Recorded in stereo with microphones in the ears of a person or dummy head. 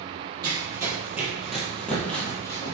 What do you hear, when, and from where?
0.4 s running footsteps: 20° right (ahead or behind), 1.6 m; by 2.7 s 25° left (ahead or behind), 1.6 m